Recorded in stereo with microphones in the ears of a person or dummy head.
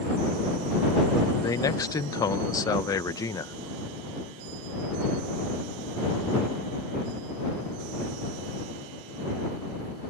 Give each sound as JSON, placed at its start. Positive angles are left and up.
{"t": 1.4, "sound": "a man speaking", "side_deg": 20}